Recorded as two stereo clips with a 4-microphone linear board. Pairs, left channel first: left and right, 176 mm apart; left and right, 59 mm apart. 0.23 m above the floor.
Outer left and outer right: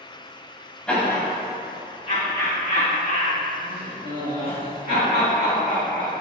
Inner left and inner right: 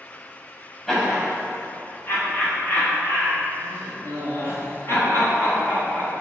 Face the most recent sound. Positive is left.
turn(degrees=60)  # may be behind; listen again after turning